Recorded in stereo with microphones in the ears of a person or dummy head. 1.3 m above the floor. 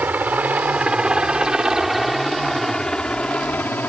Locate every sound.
0.0 s a helicopter: 10° right (ahead or behind); by 3.9 s 10° left (ahead or behind)